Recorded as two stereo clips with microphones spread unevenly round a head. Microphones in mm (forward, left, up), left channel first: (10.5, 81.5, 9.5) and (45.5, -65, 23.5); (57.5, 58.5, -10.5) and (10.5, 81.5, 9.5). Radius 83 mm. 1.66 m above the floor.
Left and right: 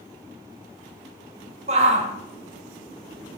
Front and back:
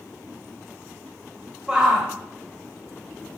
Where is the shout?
130° right, 0.8 m.